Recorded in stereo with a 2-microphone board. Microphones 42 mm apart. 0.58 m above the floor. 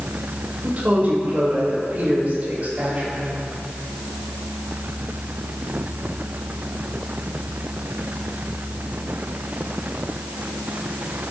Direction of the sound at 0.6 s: 40° right (ahead or behind).